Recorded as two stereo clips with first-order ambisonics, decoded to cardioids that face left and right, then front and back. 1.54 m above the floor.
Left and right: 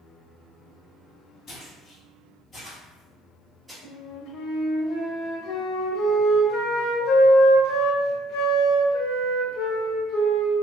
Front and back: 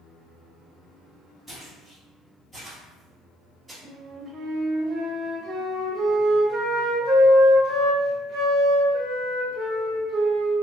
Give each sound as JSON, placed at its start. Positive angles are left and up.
{"t": 1.5, "sound": "footsteps", "azimuth_deg": 75, "distance_m": 1.9}
{"t": 3.8, "sound": "a flute", "azimuth_deg": 120, "distance_m": 0.8}